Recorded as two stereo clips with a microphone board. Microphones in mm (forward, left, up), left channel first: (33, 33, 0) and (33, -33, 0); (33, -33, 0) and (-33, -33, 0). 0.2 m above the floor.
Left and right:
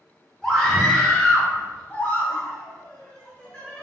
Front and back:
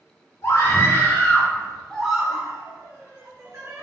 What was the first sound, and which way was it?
A scream, 10° left.